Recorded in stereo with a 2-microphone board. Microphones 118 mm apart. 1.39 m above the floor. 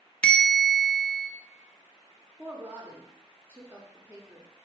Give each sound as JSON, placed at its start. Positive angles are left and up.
{"t": 0.2, "sound": "a bell", "side_deg": 10, "distance_m": 0.6}
{"t": 2.4, "sound": "a woman speaking", "side_deg": -15, "distance_m": 1.0}